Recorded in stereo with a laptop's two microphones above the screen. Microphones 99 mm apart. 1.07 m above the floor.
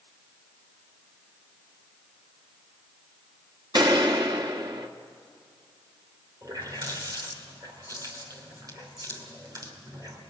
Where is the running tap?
40° right (ahead or behind), 2.5 m.